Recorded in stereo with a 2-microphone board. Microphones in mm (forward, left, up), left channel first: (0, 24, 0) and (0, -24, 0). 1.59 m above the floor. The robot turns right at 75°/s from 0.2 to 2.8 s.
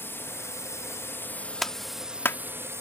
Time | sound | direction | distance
0.0 | a drone | 55° left | ?
1.6 | a clap | centre (ahead or behind) | ?